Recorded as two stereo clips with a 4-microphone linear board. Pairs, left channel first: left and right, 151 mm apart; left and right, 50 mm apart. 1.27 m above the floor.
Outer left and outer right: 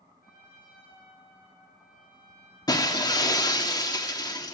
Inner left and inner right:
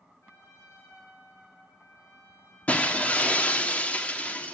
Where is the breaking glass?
25° left (ahead or behind), 1.4 m.